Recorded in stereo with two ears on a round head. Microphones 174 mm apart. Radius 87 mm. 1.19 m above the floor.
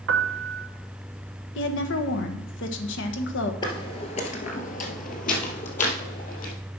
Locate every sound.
0.1 s a piano: 65° right (ahead or behind), 0.8 m
1.6 s a woman speaking: 65° left (ahead or behind), 1.2 m
3.6 s footsteps: 25° left (ahead or behind), 1.5 m; by 6.5 s 40° left (ahead or behind), 2.5 m